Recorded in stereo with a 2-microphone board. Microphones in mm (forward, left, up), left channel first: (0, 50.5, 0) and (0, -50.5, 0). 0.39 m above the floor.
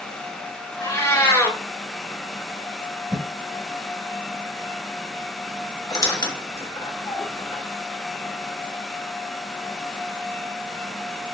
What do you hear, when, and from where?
0.8 s a cat meowing: 30° left (ahead or behind), 0.8 m
3.1 s a whoosh: 5° right (ahead or behind), 1.2 m
5.9 s a squeak: 40° left (ahead or behind), 0.6 m